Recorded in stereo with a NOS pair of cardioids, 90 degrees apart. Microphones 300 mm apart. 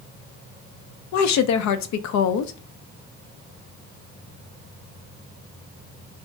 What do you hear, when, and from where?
1.1 s a woman speaking: 65° left, 0.5 m